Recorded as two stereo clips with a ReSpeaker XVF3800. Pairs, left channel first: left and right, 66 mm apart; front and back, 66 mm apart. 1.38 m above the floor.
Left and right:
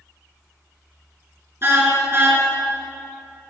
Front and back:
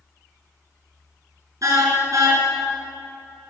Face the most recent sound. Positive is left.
turn(degrees=-145)